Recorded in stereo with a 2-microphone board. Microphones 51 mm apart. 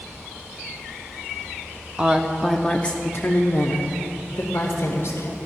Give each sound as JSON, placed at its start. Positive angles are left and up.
{"t": 2.0, "sound": "a woman speaking", "side_deg": -25, "distance_m": 0.9}